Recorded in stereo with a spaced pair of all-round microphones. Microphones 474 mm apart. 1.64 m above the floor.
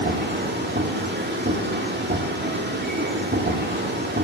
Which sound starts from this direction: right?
A machine running, at 0.0 s.